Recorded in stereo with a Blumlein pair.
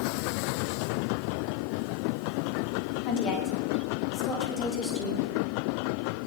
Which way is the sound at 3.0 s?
35° left.